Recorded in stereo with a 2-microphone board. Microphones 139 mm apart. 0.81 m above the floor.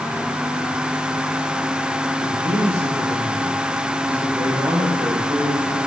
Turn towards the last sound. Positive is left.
turn(degrees=-20)  # may be behind; listen again after turning